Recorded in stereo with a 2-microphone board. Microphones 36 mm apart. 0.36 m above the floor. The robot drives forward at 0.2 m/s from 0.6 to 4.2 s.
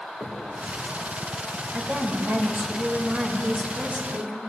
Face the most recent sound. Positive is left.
turn(degrees=-35)  # may be behind; listen again after turning